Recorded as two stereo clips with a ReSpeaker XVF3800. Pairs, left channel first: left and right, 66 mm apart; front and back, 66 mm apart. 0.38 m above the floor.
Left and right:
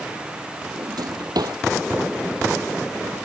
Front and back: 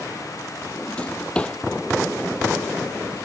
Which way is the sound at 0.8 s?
75° right.